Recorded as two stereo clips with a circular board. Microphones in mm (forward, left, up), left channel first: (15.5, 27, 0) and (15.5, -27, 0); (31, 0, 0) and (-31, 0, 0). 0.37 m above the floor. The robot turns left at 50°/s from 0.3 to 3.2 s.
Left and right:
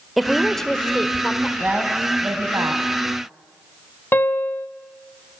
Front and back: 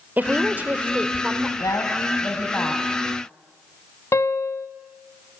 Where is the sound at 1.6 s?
10° right, 2.5 m; by 2.8 s 75° right, 2.5 m.